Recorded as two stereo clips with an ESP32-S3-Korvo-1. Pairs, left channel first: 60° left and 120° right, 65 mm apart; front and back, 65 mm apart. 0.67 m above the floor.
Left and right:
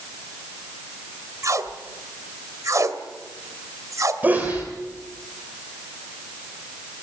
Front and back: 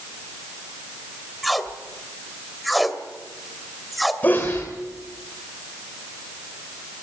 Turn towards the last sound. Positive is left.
turn(degrees=-60)